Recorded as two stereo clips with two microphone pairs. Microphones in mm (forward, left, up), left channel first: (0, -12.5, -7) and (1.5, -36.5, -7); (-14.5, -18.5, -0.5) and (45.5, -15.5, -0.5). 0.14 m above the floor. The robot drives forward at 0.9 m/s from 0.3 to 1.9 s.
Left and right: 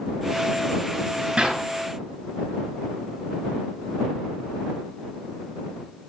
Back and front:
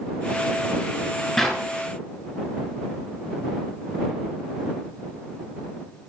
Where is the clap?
95° right, 1.6 m; by 1.6 s 105° right, 1.6 m.